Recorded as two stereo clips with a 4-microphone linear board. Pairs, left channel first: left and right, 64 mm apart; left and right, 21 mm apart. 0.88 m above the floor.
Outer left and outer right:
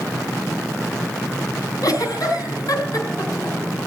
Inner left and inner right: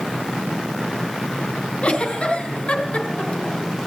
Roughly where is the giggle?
Left.